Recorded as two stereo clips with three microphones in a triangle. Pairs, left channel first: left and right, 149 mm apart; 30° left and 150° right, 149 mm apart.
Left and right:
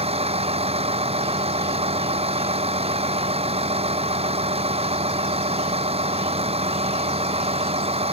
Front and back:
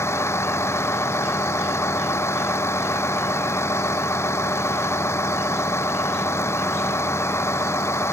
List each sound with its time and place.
0.0 s a vehicle: 45° right